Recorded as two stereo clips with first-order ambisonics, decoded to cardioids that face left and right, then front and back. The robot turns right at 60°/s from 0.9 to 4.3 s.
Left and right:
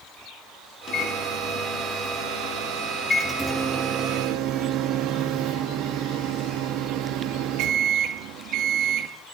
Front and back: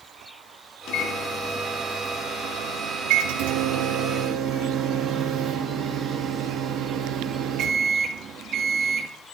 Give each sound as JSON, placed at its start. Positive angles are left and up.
{"t": 0.9, "sound": "a microwave", "azimuth_deg": 30, "distance_m": 1.8}